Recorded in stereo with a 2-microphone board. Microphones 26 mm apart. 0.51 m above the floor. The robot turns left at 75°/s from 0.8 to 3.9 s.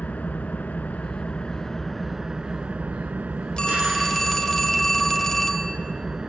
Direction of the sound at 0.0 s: 90° left.